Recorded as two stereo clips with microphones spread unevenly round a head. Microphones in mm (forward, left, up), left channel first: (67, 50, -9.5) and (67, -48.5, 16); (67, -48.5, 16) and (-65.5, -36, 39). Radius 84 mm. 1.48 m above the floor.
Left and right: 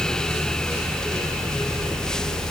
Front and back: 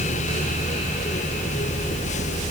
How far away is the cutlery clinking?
No cutlery clinking in this recording.